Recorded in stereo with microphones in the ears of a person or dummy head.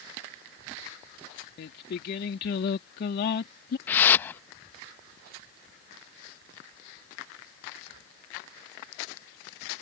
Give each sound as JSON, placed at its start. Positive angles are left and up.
{"t": 1.6, "sound": "singing", "side_deg": 60}
{"t": 3.9, "sound": "a whoosh", "side_deg": 10}